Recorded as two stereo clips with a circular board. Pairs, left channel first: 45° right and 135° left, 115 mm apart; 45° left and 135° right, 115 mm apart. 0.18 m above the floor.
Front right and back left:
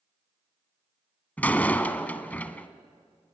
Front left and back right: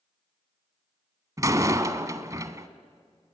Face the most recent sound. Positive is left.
turn(degrees=-110)